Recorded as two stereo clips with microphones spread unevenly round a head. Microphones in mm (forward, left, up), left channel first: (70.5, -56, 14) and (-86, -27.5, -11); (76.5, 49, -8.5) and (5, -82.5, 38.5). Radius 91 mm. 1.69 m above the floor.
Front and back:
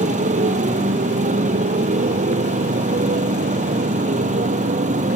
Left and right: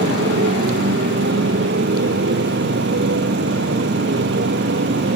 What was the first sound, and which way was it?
A motorcycle, 145° right.